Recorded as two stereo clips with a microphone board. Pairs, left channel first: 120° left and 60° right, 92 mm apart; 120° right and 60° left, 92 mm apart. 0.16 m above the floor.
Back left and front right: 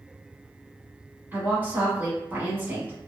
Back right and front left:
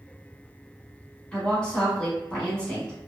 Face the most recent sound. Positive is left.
turn(degrees=-60)